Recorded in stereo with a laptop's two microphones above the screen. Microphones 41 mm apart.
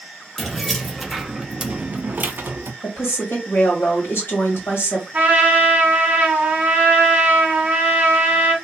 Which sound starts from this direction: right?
A trumpet, at 5.1 s.